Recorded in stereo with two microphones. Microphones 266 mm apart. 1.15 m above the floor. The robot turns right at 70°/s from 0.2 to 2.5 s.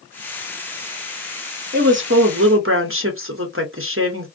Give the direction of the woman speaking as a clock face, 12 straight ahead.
4 o'clock.